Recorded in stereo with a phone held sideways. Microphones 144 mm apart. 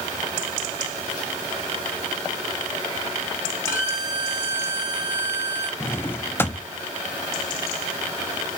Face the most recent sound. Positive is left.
turn(degrees=15)  # may be behind; listen again after turning